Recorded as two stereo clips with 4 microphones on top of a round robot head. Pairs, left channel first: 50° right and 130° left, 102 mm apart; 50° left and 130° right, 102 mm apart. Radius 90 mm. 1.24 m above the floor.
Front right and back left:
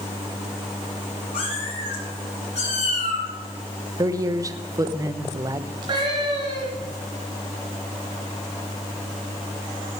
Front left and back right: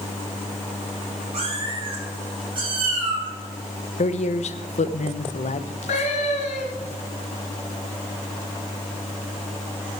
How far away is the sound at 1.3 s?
About 5 m.